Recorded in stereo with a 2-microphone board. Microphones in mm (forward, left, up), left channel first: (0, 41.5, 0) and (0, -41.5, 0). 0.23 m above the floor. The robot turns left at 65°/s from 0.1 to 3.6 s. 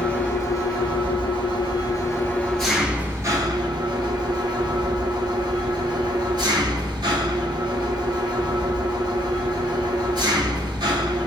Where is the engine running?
170° left, 0.9 m; by 11.3 s 60° right, 0.9 m.